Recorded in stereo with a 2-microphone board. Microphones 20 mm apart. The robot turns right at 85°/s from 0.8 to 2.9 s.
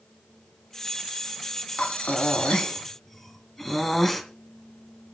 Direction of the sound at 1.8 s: 70° left.